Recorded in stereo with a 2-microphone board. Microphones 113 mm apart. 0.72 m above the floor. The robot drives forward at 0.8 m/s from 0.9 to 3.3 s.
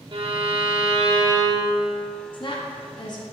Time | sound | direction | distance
0.1 | a violin | 55° right (ahead or behind) | 0.8 m
2.3 | a woman speaking | 45° left (ahead or behind) | 0.9 m